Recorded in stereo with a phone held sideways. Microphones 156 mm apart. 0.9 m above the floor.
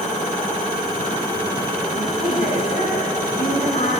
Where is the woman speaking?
70° left (ahead or behind), 9.5 m; by 3.9 s 75° left (ahead or behind), 9 m.